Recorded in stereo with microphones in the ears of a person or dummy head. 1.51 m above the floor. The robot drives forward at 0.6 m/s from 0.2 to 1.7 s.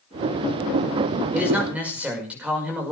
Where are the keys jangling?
No keys jangling in this recording.